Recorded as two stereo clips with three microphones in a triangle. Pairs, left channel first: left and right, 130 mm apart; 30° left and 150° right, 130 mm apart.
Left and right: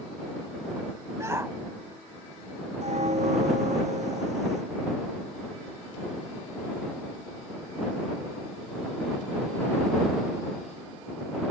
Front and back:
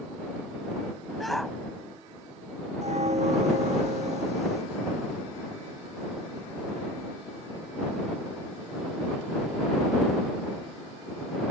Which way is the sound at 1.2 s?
60° right.